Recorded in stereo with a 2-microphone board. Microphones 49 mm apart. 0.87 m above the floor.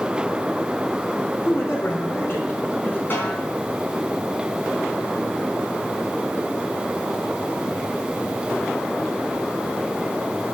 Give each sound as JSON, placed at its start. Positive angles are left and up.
{"t": 1.4, "sound": "a man speaking", "side_deg": 65, "distance_m": 2.5}
{"t": 3.1, "sound": "a snare drum", "side_deg": 45, "distance_m": 4.0}